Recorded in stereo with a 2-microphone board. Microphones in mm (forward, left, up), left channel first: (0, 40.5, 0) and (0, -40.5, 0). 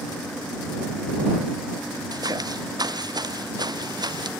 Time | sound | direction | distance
2.1 | footsteps | 50° right (ahead or behind) | ?